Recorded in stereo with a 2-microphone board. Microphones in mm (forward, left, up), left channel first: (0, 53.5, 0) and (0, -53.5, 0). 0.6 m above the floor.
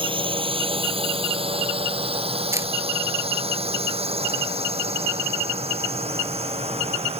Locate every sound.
0.0 s a drone: 50° right (ahead or behind); by 7.2 s 70° right (ahead or behind)
2.5 s a camera shutter: 25° right (ahead or behind)